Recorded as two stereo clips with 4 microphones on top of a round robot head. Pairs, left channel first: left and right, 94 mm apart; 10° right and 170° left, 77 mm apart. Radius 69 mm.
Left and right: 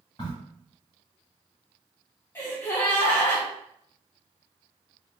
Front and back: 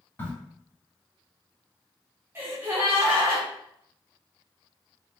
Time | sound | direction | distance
0.2 | a crack | 40° left | 1.9 m
2.4 | a gasp | 135° left | 0.9 m